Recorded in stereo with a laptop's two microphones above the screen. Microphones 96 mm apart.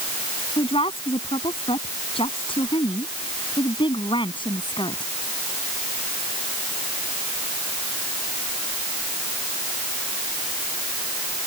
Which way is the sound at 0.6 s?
75° left (ahead or behind).